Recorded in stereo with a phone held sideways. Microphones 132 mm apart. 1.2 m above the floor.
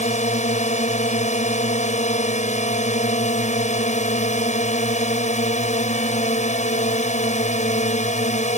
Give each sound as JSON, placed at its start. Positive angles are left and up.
{"t": 0.0, "sound": "a drone", "side_deg": 65}